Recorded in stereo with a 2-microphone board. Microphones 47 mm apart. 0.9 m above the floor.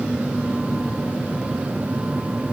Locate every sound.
Only background noise.